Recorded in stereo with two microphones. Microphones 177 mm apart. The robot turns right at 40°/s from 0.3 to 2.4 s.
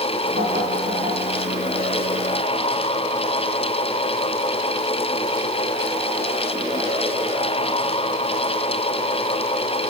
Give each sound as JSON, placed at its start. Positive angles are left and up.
{"t": 0.4, "sound": "knocking", "side_deg": -65, "distance_m": 7.0}